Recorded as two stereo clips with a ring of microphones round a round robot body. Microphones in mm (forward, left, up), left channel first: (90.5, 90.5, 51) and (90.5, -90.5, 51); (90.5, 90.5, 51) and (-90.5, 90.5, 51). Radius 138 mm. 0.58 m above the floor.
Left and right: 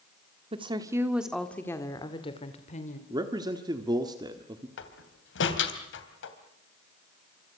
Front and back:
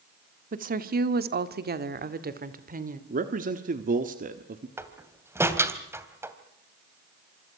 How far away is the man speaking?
About 1.4 m.